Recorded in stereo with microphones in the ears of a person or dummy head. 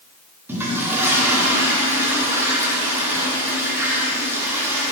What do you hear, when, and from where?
0.5 s a toilet flushing: 15° right (ahead or behind), 1.4 m